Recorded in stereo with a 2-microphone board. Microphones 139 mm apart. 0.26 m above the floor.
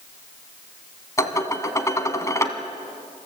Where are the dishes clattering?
20° left (ahead or behind), 1.4 m.